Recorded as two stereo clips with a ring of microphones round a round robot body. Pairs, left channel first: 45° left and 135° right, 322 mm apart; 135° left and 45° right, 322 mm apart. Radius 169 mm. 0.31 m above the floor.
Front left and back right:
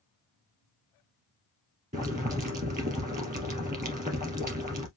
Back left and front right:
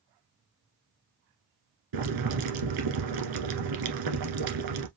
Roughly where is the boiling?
Right.